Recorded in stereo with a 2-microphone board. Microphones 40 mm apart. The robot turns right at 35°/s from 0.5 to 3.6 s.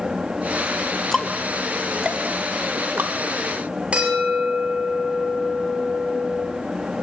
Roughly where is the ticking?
Centre.